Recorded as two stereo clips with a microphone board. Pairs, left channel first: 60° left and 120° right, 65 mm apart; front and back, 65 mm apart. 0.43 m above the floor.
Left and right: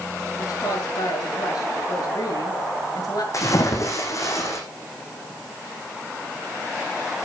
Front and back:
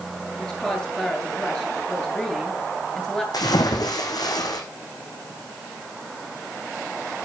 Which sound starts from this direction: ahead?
A splash, at 3.3 s.